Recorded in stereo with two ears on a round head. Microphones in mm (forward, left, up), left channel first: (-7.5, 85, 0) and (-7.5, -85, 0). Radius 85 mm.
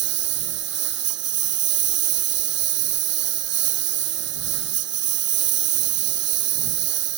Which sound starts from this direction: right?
A lawn mower, at 0.0 s.